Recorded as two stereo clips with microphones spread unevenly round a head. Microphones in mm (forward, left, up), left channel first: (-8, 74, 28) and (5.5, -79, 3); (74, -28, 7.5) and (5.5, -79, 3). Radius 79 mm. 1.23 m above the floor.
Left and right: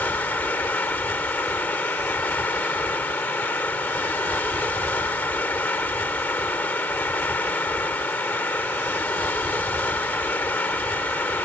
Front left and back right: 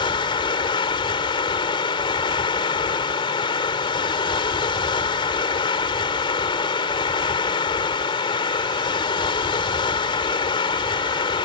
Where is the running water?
15° left.